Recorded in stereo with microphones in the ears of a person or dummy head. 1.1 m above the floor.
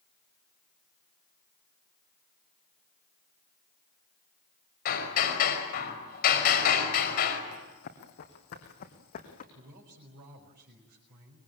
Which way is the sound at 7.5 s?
60° left (ahead or behind).